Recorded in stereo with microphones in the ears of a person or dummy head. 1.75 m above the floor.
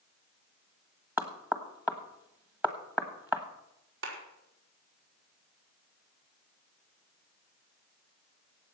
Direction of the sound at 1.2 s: 10° right (ahead or behind).